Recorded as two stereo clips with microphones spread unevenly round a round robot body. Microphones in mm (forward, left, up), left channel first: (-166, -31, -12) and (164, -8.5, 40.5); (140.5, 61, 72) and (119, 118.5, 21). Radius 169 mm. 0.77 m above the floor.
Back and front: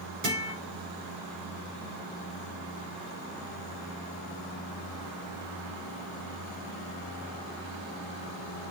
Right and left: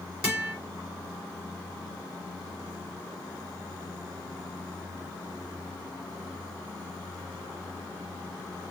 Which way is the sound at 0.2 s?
45° left.